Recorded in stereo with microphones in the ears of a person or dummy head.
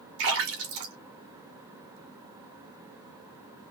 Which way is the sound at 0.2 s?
75° right (ahead or behind).